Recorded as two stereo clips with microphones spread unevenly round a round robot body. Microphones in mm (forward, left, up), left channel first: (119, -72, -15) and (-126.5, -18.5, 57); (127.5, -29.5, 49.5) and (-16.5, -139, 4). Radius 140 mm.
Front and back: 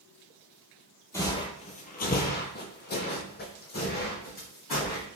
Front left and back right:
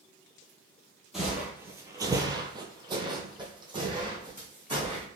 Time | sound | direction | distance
1.1 | footsteps | 95° left | 0.6 m